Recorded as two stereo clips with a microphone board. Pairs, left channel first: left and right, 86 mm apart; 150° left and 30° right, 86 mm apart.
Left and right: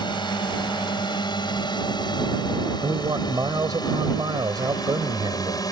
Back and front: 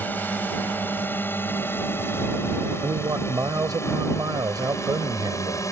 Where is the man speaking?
65° right.